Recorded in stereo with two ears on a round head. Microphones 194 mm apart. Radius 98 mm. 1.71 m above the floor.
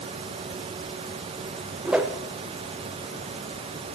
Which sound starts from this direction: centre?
A whoosh, at 1.9 s.